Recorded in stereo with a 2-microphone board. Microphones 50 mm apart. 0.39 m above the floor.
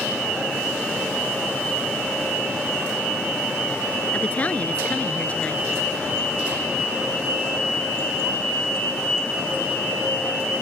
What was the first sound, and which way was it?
A woman speaking, 30° left (ahead or behind).